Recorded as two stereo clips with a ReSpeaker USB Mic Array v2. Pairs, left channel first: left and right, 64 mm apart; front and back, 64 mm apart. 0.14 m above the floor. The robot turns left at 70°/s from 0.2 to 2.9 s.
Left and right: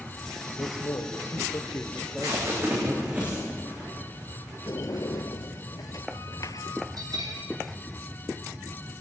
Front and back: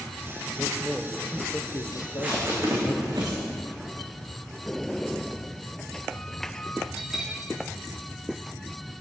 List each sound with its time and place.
0.6 s a man speaking: 115° left, 3 m; by 3.0 s 45° right, 3 m
1.9 s tape being pulled: 95° right, 10 m; by 3.4 s 165° right, 10 m
4.7 s a sliding door: 80° left, 0.7 m
7.0 s a bell: 100° right, 7.5 m